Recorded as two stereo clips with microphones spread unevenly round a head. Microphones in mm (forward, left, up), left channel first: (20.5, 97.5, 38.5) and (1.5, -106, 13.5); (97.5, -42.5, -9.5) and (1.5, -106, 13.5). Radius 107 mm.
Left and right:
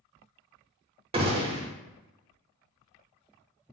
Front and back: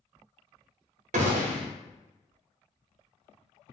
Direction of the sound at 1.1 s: 150° right.